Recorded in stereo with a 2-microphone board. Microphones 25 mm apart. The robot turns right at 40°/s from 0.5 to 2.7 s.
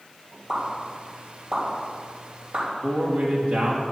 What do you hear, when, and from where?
0.5 s a pop: 15° right (ahead or behind), 4 m; by 2.6 s 70° right (ahead or behind), 4 m
2.8 s a man speaking: 75° right (ahead or behind), 2.5 m